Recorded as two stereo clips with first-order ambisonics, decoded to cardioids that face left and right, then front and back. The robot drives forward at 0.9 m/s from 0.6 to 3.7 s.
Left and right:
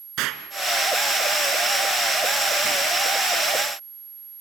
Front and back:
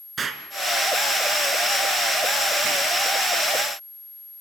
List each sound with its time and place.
0.2 s an explosion: 115° right, 2.5 m; by 2.9 s 145° right, 4 m